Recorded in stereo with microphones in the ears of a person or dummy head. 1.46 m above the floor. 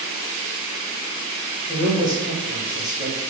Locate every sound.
1.7 s a man speaking: 20° right (ahead or behind), 2 m